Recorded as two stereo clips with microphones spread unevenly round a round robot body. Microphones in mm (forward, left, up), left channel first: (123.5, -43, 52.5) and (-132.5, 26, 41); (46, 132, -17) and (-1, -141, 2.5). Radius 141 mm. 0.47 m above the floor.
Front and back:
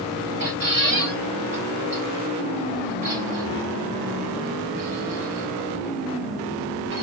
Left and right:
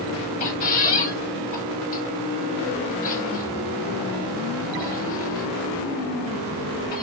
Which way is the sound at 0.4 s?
115° left.